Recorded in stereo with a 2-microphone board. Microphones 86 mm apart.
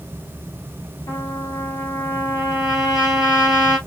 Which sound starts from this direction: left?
A trumpet, at 1.1 s.